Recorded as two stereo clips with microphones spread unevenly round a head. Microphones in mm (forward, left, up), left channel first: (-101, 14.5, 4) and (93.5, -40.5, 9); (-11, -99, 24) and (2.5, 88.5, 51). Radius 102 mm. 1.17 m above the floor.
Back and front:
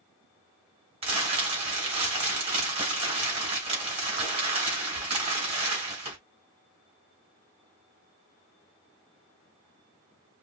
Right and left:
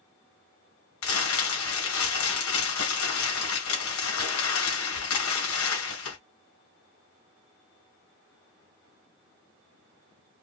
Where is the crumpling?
75° right, 2.5 m.